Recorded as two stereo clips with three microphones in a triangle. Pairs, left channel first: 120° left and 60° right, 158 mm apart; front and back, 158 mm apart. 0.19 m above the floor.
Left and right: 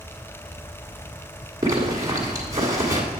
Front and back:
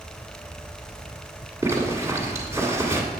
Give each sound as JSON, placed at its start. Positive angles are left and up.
{"t": 1.6, "sound": "a zipper", "azimuth_deg": -120, "distance_m": 1.4}